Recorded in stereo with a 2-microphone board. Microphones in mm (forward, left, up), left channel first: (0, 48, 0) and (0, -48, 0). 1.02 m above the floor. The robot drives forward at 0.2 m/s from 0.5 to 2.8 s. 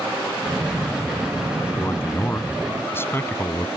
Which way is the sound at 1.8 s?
25° left (ahead or behind).